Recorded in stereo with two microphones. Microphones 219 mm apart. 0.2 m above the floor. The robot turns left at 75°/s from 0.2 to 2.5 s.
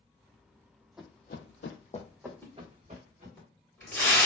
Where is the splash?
15° left (ahead or behind), 1.5 m; by 4.3 s 10° left (ahead or behind), 1.5 m.